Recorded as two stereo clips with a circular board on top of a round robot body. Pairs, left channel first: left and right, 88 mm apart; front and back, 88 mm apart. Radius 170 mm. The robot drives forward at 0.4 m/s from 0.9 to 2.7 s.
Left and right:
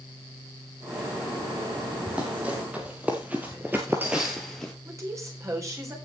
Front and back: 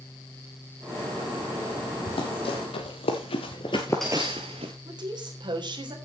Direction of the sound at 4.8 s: 145° right.